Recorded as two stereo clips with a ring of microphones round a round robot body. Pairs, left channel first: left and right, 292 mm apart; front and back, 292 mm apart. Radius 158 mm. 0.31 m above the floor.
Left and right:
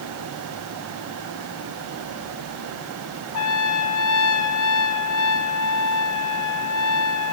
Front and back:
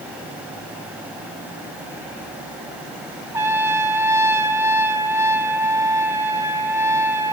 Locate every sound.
3.3 s a trumpet: 100° left, 1.8 m